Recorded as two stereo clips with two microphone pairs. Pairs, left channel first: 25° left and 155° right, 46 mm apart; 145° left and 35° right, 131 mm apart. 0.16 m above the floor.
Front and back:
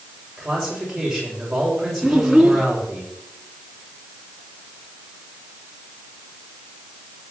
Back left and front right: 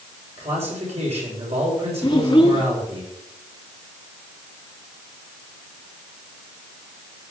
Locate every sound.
0.4 s a man speaking: 65° right, 7.5 m
2.0 s a child speaking: 125° left, 0.9 m